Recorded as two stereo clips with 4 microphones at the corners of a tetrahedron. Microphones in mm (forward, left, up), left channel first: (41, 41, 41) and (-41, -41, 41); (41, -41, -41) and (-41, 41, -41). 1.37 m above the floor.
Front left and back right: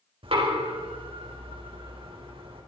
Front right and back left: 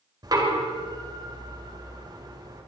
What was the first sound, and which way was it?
Knocking, 170° right.